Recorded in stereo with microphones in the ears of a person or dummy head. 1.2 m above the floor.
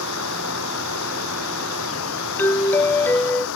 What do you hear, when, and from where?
0.0 s running water: 75° left (ahead or behind)
2.4 s a doorbell: 10° left (ahead or behind)